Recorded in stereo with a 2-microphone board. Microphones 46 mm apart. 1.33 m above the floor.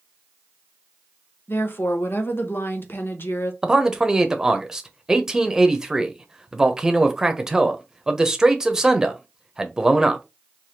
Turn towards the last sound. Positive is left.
turn(degrees=-15)  # may be behind; listen again after turning